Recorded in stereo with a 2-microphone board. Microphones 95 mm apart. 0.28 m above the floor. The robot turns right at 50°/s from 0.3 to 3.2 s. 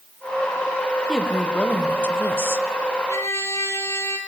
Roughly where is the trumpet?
Left.